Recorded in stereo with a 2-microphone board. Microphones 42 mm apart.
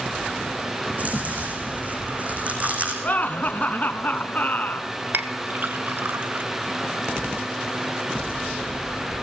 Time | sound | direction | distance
0.9 | chewing | 40° right (ahead or behind) | 5 m
3.0 | laughter | 40° left (ahead or behind) | 1.8 m
5.1 | a clink | 55° right (ahead or behind) | 1.2 m